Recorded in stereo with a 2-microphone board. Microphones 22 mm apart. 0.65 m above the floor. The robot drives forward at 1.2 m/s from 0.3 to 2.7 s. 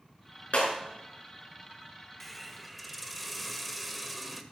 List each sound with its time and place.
0.5 s breaking glass: 65° left (ahead or behind), 4.5 m; by 0.7 s 70° left (ahead or behind), 4.5 m
2.2 s a hiss: 10° left (ahead or behind), 0.7 m; by 4.4 s 5° left (ahead or behind), 1.3 m